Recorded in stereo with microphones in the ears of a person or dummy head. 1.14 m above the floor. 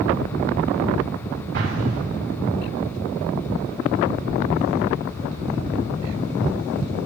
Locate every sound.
1.5 s an explosion: 65° right (ahead or behind), 8 m